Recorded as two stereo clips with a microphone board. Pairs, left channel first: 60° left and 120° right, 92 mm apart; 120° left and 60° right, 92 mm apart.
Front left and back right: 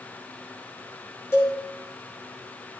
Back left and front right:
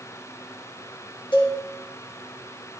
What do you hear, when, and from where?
1.3 s a cowbell: 120° left, 2.5 m